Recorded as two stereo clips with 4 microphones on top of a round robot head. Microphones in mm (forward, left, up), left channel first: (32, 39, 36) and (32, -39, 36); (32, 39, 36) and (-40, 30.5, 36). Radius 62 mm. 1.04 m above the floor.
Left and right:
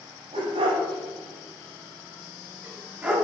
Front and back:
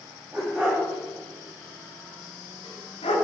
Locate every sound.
0.3 s a dog barking: 95° right, 1.9 m; by 3.1 s 10° right, 1.9 m